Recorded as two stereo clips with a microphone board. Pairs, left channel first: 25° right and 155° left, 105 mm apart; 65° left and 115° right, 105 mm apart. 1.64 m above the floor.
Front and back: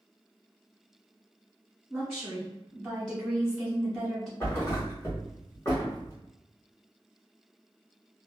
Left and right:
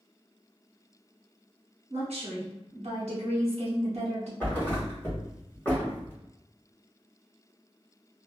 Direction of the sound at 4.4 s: 15° left.